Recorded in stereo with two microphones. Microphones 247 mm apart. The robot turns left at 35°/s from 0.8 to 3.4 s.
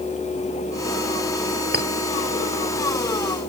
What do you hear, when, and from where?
1.7 s a clink: 40° right (ahead or behind); by 1.9 s 35° right (ahead or behind)